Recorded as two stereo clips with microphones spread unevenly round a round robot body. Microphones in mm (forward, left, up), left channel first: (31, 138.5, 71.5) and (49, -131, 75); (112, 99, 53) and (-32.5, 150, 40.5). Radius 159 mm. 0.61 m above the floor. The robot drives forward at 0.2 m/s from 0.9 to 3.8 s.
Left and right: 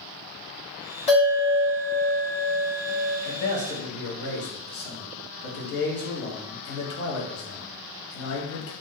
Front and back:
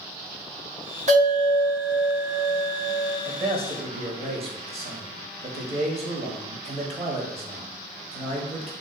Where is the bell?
155° left, 1.6 m; by 3.1 s 160° left, 1.9 m.